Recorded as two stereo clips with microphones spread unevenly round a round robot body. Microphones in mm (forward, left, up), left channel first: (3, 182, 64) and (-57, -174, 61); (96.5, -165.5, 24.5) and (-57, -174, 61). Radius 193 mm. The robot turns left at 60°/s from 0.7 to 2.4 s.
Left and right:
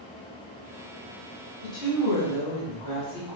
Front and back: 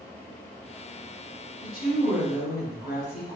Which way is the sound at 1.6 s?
95° left.